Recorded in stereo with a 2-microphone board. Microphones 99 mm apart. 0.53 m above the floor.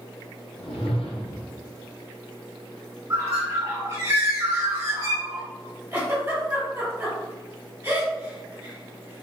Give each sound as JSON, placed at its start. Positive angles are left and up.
{"t": 0.6, "sound": "a whoosh", "side_deg": 70, "distance_m": 0.7}
{"t": 3.1, "sound": "a bird", "side_deg": -30, "distance_m": 1.8}
{"t": 5.9, "sound": "a giggle", "side_deg": -25, "distance_m": 1.9}